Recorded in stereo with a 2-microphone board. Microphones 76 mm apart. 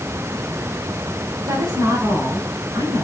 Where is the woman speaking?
75° right (ahead or behind), 3 m; by 3.0 s 65° right (ahead or behind), 5 m.